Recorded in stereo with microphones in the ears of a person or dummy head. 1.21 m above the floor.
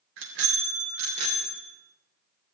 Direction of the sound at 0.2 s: 70° right (ahead or behind).